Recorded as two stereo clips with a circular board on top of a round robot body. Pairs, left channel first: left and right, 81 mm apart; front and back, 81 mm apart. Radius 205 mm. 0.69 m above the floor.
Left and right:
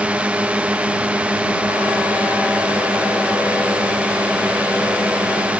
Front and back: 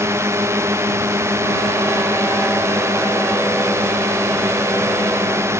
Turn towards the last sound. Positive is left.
turn(degrees=-155)